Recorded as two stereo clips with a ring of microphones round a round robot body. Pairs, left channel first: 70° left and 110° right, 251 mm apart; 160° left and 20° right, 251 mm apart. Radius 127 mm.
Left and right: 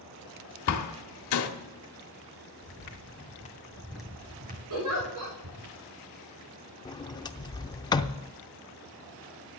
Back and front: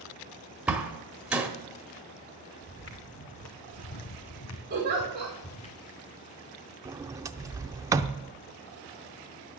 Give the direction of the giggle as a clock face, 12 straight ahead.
3 o'clock.